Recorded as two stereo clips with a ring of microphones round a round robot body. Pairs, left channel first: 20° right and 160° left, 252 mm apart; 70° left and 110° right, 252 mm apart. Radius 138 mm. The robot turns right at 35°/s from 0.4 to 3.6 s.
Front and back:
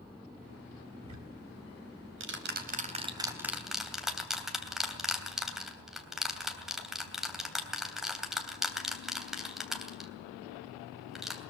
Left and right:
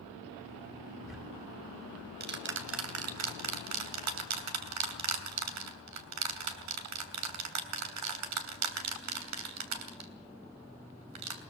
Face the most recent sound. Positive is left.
turn(degrees=-115)